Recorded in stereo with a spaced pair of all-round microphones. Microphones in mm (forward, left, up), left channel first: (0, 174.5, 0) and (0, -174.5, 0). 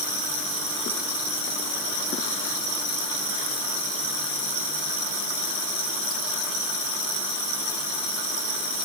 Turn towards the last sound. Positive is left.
No sound to turn to.